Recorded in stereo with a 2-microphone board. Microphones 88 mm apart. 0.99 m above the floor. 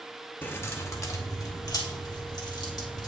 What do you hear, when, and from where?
0.4 s keys jangling: 25° left (ahead or behind), 0.8 m; by 3.1 s 55° left (ahead or behind), 2 m